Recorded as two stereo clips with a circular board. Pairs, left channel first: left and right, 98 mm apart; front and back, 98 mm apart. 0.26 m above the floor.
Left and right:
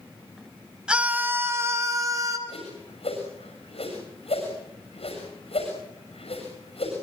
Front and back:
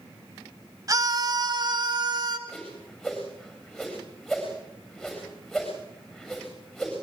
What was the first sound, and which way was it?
A scream, 165° right.